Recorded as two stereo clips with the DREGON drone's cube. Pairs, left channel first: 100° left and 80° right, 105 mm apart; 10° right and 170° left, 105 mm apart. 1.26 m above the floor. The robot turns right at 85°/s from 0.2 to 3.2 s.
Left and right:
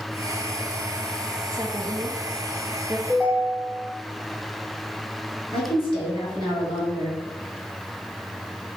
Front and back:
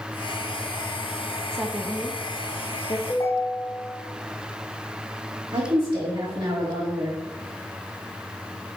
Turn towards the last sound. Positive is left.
turn(degrees=135)